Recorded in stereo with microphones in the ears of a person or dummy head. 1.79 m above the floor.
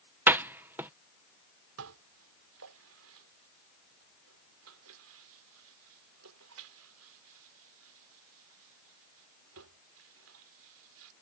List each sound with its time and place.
0.3 s a door slam: 10° right (ahead or behind)
1.8 s dishes clattering: 75° right (ahead or behind)